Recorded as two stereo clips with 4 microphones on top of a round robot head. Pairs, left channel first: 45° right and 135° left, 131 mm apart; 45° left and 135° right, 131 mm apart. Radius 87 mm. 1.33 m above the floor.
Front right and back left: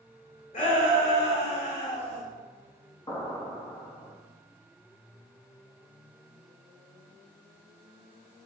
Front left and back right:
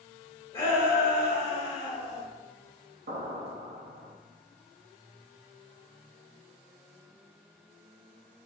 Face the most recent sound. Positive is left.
turn(degrees=-110)